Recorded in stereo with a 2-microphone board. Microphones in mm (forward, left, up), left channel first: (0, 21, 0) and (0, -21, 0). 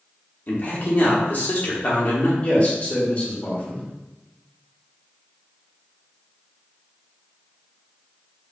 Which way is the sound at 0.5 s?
45° left (ahead or behind).